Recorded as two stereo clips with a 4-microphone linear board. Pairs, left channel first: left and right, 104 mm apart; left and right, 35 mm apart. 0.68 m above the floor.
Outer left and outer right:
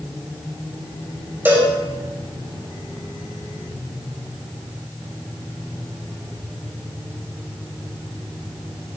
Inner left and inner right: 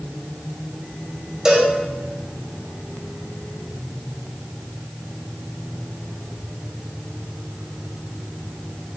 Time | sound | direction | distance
1.4 | a cowbell | 20° right (ahead or behind) | 3 m